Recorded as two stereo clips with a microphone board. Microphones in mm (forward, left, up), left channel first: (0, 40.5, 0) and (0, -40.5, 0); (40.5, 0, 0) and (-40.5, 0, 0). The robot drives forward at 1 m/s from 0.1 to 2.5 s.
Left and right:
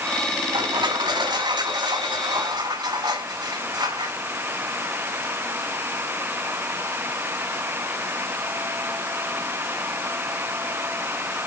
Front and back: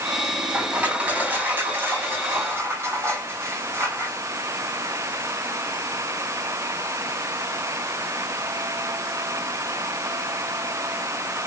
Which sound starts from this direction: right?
Crushing, at 0.5 s.